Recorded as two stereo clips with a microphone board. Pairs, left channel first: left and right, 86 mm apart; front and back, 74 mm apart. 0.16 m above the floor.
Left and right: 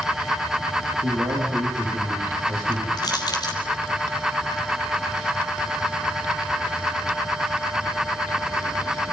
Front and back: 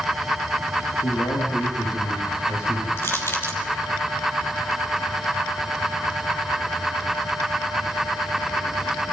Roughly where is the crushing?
Ahead left.